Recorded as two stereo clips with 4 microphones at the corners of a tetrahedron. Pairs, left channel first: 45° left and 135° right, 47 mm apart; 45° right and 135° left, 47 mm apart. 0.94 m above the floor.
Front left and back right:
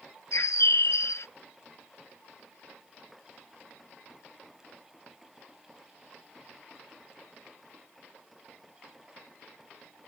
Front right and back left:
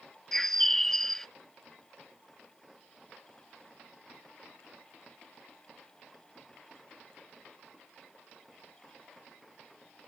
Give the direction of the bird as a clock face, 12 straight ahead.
11 o'clock.